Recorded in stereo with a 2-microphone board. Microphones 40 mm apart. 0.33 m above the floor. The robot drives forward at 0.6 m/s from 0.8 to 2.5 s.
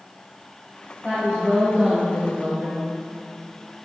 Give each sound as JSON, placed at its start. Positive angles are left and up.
{"t": 1.0, "sound": "a woman speaking", "side_deg": -20, "distance_m": 1.7}